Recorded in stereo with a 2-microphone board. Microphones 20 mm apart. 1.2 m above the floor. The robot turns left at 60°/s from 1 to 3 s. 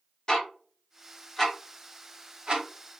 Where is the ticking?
30° left (ahead or behind), 0.9 m; by 3.0 s 85° right, 0.9 m.